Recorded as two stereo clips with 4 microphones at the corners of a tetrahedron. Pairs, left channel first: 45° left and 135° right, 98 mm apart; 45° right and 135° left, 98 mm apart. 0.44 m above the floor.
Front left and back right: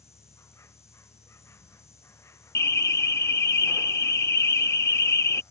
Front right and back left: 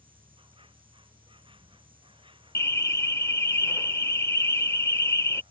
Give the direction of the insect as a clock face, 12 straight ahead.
8 o'clock.